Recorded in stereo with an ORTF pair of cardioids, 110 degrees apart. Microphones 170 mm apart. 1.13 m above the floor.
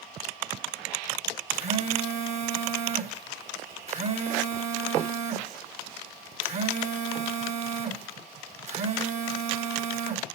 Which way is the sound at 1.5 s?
45° right.